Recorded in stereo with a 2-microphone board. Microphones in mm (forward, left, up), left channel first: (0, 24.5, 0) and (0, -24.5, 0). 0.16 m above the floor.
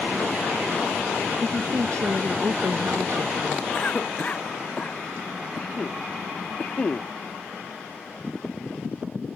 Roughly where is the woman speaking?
Right.